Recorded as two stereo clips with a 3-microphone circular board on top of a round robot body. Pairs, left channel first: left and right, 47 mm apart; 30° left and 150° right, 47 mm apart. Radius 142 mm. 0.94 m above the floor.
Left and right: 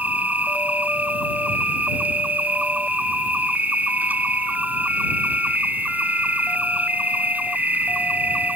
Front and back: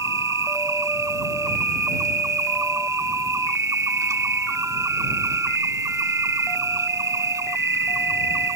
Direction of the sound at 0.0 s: 150° right.